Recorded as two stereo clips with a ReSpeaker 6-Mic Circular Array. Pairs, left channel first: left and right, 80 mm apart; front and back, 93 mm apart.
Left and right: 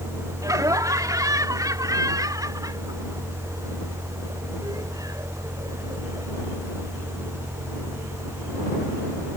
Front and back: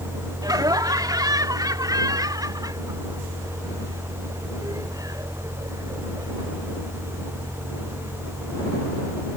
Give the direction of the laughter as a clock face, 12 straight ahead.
4 o'clock.